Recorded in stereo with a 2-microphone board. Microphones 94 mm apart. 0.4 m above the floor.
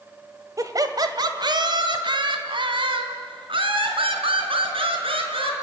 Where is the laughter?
35° right (ahead or behind), 1.5 m; by 5.5 s 75° right (ahead or behind), 4.5 m.